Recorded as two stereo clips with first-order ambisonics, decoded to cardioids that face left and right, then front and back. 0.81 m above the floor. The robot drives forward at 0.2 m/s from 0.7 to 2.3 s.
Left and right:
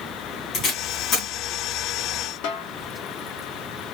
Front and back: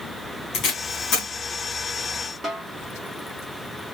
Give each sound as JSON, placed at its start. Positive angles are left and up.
{"t": 0.5, "sound": "tape being pulled", "azimuth_deg": 45, "distance_m": 3.0}
{"t": 2.4, "sound": "a snare drum", "azimuth_deg": 105, "distance_m": 0.7}